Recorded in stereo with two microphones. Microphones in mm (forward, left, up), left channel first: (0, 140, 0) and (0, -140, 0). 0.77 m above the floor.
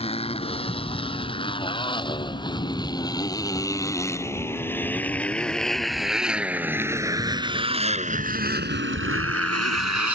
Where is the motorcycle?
20° left (ahead or behind); by 10.2 s 70° right (ahead or behind).